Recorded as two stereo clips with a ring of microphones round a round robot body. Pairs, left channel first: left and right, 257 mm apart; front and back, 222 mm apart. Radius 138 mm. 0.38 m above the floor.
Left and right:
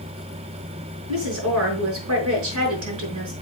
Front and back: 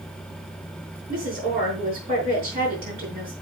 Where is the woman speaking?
125° right, 5.5 m.